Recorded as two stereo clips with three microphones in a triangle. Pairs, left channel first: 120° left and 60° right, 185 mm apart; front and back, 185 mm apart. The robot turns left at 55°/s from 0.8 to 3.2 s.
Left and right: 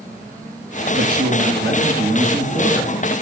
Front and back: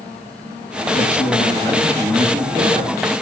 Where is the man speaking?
30° right, 3 m; by 3.0 s 140° right, 3 m.